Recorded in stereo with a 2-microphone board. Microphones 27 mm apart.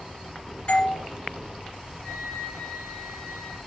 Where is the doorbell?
40° left (ahead or behind), 2 m.